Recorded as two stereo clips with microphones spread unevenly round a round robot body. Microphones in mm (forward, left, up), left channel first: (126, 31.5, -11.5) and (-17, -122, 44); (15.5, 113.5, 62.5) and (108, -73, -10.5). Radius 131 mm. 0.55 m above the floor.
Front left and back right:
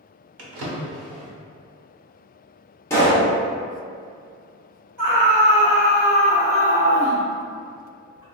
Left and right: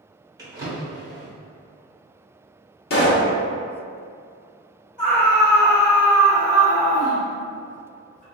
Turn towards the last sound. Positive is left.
turn(degrees=-175)